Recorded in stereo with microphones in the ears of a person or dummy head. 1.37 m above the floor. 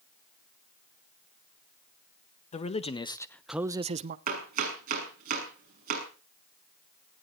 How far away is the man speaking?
About 1.4 m.